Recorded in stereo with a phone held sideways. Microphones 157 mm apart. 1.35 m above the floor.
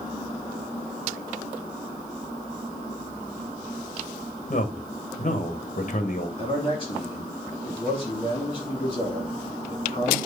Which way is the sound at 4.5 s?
50° left (ahead or behind).